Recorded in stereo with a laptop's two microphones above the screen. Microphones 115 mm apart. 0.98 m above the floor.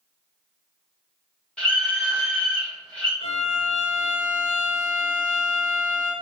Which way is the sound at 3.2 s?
50° left (ahead or behind).